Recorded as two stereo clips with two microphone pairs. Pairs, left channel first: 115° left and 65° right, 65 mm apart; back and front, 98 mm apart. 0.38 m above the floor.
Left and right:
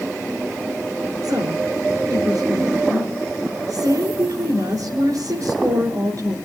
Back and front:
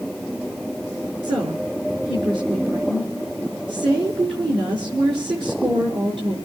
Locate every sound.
1.2 s a woman speaking: 30° right, 5 m